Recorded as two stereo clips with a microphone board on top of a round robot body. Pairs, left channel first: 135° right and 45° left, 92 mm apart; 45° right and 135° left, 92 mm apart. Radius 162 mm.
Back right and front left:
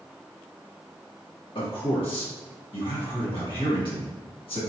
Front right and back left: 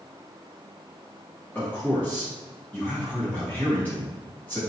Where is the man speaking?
115° right, 1.8 m.